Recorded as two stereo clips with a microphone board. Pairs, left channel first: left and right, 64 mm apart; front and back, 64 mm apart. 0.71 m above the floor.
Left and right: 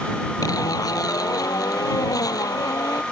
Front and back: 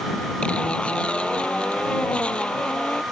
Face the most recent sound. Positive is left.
turn(degrees=75)